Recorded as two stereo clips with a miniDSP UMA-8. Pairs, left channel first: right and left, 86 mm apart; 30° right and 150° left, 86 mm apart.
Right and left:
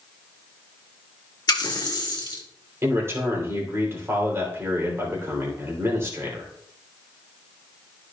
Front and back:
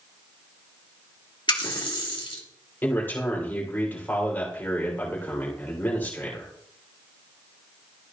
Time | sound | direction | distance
1.5 | a running tap | 50° right | 1.6 m
2.8 | a man speaking | 35° left | 3 m